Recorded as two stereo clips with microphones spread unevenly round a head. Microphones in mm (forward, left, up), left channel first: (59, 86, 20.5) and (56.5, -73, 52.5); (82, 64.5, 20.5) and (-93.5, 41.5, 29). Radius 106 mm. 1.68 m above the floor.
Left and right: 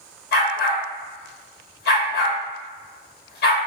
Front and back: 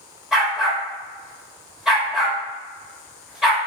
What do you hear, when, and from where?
0.3 s a dog barking: 105° left, 1.4 m